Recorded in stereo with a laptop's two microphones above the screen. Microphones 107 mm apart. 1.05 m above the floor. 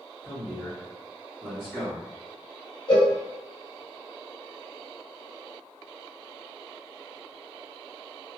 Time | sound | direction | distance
0.2 | a man speaking | 15° left (ahead or behind) | 1.6 m
2.9 | a cowbell | 45° left (ahead or behind) | 1.2 m